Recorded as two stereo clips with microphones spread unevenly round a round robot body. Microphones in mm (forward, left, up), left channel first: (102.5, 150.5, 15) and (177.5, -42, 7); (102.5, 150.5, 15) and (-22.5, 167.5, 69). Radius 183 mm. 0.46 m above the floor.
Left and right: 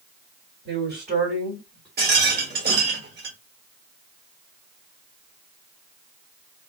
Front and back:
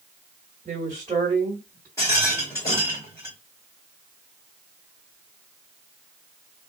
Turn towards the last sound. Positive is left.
turn(degrees=-45)